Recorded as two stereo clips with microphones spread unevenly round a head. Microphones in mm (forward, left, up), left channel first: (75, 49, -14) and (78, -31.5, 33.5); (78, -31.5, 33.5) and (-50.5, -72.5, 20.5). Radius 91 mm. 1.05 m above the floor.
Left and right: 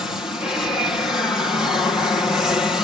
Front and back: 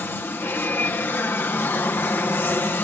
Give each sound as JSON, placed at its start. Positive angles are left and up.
{"t": 0.0, "sound": "an aircraft", "azimuth_deg": 80}